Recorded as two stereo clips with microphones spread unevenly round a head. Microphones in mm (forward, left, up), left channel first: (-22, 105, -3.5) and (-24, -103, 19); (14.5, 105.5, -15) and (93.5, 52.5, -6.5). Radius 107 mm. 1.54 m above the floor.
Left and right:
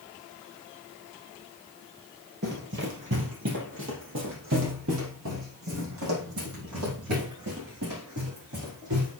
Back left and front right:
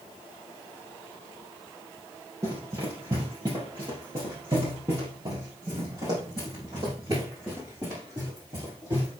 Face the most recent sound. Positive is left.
turn(degrees=-100)